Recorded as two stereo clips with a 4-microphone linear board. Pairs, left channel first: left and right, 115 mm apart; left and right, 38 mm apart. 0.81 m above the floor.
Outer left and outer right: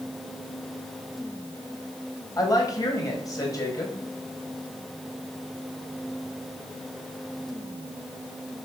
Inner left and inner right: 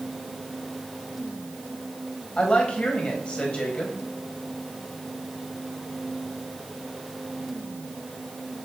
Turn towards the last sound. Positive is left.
turn(degrees=30)  # may be behind; listen again after turning